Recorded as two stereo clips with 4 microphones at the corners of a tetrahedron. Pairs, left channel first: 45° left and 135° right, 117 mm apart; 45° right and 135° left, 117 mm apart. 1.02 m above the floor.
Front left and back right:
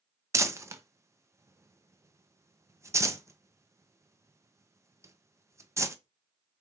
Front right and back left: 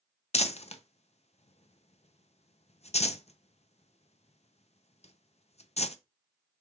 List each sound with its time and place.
0.3 s crumpling: 70° right, 0.5 m